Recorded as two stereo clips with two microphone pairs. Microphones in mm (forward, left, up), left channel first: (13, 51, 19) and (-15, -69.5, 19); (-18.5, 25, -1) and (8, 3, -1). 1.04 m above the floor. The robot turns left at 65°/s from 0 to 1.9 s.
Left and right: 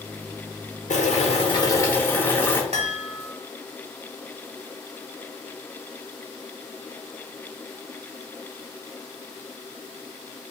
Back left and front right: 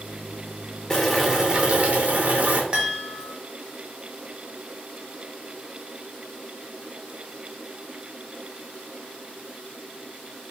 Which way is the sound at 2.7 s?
95° right.